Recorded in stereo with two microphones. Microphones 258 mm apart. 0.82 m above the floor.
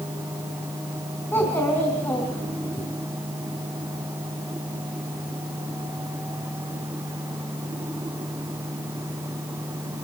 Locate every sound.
1.3 s a child speaking: 10° left (ahead or behind), 4.5 m